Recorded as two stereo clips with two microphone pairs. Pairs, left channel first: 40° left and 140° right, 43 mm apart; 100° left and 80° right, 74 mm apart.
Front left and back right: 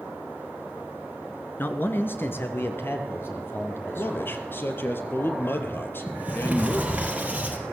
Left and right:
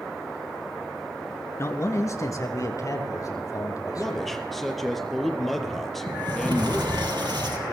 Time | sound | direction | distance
1.6 | a man speaking | 55° left | 2.5 m
4.0 | a man speaking | 10° left | 3.5 m
6.1 | a sliding door | 85° right | 4 m